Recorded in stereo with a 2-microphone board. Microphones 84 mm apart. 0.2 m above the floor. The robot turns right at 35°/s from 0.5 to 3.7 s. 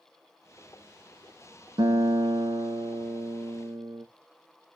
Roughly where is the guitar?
Right.